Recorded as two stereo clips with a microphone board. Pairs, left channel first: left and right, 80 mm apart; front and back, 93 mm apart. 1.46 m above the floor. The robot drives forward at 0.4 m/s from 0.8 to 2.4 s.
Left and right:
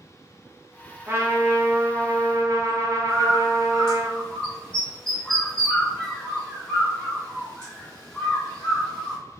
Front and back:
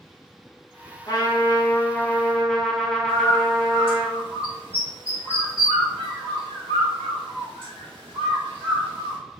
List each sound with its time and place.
1.1 s a trumpet: 35° right, 0.9 m; by 4.1 s 85° right, 0.6 m
3.1 s a bird: 170° left, 1.6 m